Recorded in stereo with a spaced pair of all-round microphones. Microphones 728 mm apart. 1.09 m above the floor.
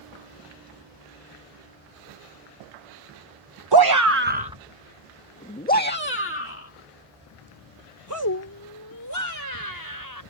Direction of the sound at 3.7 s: 35° right (ahead or behind).